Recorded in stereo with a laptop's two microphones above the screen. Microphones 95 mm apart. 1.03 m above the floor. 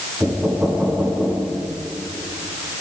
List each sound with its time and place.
0.2 s knocking: 15° right (ahead or behind), 8 m